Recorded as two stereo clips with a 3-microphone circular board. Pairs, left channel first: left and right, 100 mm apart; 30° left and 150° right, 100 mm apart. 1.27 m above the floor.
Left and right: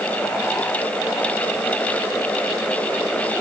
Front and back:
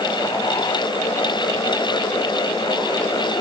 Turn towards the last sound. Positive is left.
No sound to turn to.